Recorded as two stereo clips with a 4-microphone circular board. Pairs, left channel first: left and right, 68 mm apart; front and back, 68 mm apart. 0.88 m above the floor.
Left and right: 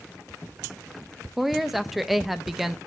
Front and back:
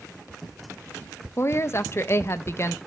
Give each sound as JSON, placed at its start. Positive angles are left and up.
{"t": 1.4, "sound": "a woman speaking", "azimuth_deg": -5, "distance_m": 0.6}